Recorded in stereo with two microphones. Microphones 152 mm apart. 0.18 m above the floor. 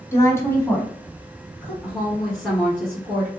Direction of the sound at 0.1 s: 20° left (ahead or behind).